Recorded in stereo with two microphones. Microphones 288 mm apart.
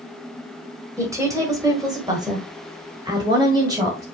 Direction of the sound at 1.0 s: 10° right (ahead or behind).